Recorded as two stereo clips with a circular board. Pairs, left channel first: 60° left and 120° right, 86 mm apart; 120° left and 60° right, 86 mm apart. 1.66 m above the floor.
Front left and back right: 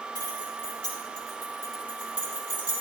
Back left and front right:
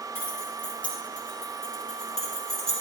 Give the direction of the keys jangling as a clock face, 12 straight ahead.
10 o'clock.